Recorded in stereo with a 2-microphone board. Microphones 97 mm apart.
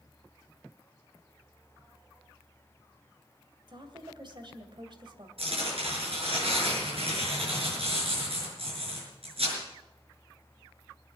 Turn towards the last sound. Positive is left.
turn(degrees=-75)  # may be behind; listen again after turning